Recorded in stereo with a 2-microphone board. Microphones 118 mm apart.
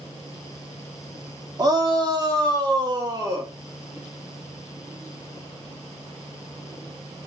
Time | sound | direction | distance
1.6 | a shout | 30° right (ahead or behind) | 1.5 m